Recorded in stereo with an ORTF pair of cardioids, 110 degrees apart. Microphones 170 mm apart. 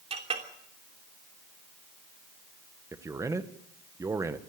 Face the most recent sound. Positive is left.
turn(degrees=-20)